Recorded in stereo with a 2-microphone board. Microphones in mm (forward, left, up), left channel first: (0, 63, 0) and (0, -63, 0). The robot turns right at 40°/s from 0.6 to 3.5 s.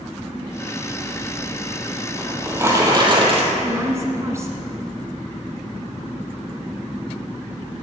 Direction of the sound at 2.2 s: 175° right.